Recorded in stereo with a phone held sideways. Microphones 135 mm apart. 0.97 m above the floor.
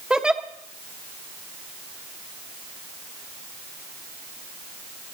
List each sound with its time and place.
0.1 s a giggle: 5° right (ahead or behind), 0.9 m